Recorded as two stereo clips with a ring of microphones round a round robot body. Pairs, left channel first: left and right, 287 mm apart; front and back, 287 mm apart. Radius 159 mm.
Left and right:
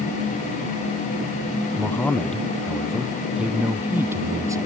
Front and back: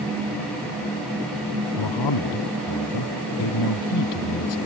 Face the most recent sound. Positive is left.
turn(degrees=-10)